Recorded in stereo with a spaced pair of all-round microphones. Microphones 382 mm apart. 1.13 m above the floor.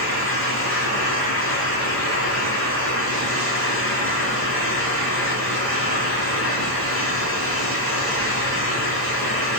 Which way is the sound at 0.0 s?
35° left (ahead or behind).